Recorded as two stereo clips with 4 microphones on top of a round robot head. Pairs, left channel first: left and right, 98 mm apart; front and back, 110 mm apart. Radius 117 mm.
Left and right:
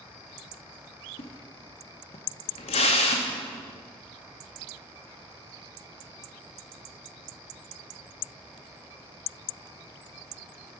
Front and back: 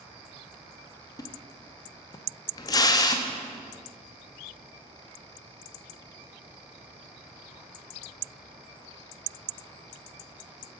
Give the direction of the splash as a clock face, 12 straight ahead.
10 o'clock.